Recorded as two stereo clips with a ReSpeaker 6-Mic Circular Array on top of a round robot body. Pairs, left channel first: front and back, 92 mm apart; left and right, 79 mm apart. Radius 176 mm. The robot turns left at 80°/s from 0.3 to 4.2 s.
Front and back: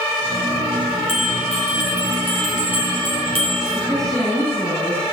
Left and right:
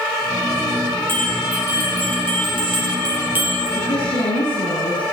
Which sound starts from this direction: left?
A woman speaking, at 3.8 s.